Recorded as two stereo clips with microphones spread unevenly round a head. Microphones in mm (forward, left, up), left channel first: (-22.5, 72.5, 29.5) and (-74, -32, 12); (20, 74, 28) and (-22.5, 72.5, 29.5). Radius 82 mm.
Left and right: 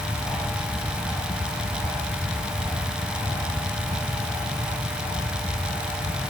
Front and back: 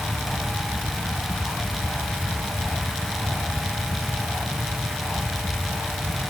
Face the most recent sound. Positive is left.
No sound to turn to.